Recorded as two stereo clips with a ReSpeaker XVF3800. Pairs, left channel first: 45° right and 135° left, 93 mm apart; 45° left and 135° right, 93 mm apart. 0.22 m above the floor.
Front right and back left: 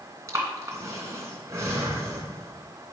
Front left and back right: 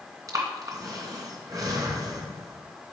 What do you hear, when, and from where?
0.3 s breathing: 175° right, 2.5 m